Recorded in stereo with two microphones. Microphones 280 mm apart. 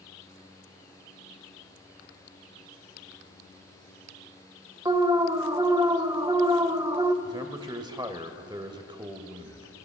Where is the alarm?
15° right (ahead or behind), 0.6 m.